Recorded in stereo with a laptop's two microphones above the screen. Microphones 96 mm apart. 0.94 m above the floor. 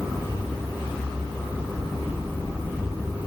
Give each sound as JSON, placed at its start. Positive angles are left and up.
{"t": 1.7, "sound": "knocking", "side_deg": -50, "distance_m": 5.5}